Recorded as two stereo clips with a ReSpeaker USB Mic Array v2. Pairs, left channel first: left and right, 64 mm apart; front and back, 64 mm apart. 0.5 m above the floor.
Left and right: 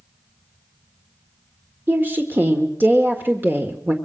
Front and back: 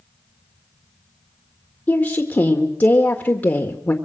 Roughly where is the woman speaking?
Ahead right.